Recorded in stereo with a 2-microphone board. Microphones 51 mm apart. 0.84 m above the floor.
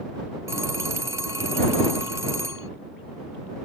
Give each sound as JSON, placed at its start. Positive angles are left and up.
{"t": 0.5, "sound": "a phone ringing", "side_deg": -80}